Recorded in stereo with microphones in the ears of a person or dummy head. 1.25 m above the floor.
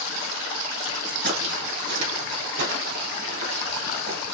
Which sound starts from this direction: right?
Footsteps, at 1.2 s.